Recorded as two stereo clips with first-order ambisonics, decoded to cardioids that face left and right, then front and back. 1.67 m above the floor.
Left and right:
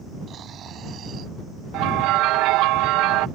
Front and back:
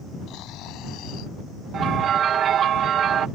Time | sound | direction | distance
0.3 | snoring | 30° right | ?
1.7 | a bell | 120° right | ?